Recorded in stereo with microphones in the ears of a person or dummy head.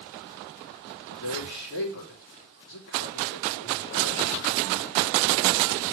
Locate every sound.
1.1 s a man speaking: 70° left (ahead or behind), 3.5 m